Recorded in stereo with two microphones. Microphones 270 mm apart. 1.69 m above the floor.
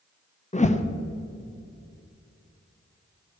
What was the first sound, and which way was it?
A whoosh, 25° left (ahead or behind).